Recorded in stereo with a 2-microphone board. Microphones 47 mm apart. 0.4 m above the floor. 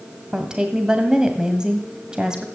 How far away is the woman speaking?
About 1.9 m.